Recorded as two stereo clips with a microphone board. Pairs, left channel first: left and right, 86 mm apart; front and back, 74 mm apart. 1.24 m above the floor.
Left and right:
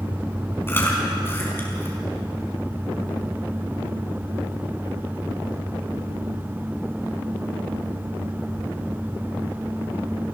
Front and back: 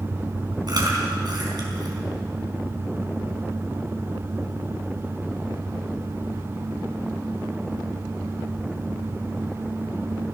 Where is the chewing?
155° left, 5 m.